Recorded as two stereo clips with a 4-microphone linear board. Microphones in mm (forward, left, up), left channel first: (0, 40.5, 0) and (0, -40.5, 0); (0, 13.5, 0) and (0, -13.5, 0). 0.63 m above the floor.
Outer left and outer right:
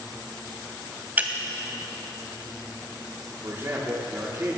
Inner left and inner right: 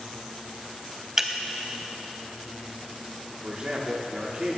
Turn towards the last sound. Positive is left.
turn(degrees=-35)  # may be behind; listen again after turning